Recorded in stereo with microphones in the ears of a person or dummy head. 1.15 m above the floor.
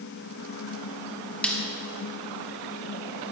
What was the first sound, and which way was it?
A snare drum, 5° left (ahead or behind).